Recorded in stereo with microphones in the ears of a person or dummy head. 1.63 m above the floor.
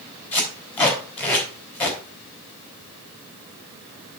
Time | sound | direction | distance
0.3 | tape being pulled | 15° left (ahead or behind) | 4 m